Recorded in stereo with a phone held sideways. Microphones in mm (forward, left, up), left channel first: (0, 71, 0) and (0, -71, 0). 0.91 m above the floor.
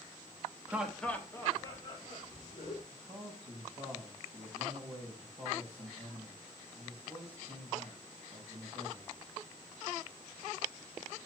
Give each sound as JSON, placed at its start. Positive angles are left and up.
{"t": 0.7, "sound": "laughter", "side_deg": -15, "distance_m": 1.0}
{"t": 2.9, "sound": "a man speaking", "side_deg": -40, "distance_m": 4.0}